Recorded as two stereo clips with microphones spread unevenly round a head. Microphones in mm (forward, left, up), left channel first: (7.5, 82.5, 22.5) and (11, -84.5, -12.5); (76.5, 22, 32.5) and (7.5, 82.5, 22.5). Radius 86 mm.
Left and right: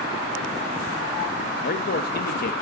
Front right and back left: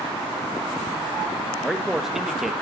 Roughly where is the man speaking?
Ahead left.